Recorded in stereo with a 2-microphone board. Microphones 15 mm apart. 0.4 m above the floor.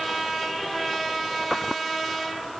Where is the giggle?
No giggle in this recording.